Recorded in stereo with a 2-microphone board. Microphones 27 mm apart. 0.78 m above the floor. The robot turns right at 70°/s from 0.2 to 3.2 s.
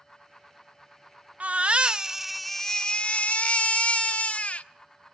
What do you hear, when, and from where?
1.4 s a baby crying: 70° right, 0.7 m; by 4.7 s 55° left, 0.7 m